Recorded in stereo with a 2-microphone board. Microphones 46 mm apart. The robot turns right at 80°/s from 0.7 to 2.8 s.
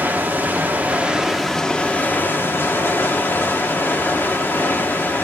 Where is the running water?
60° right, 1.3 m; by 5.2 s 110° left, 1.3 m.